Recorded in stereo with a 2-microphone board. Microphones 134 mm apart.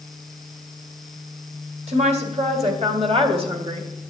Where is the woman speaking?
60° right (ahead or behind), 2.5 m; by 3.9 s 40° right (ahead or behind), 1.6 m.